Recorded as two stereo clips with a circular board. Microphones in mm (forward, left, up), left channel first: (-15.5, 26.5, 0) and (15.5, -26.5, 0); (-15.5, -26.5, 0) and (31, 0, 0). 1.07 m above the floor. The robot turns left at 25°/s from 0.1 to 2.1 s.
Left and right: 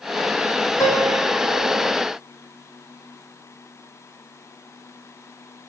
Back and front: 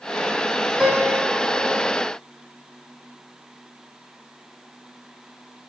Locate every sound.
0.8 s a piano: 105° left, 5 m; by 1.9 s 75° left, 5 m